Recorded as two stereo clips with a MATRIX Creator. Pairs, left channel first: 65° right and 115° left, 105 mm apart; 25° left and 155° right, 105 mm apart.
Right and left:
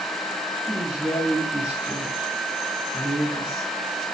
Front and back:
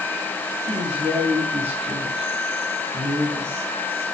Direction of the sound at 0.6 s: 160° right.